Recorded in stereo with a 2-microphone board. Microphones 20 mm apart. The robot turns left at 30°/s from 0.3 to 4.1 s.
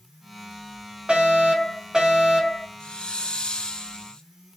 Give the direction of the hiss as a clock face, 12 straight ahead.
8 o'clock.